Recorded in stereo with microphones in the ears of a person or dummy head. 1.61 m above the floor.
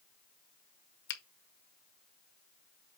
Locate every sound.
1.1 s a finger snap: 60° left (ahead or behind), 1.0 m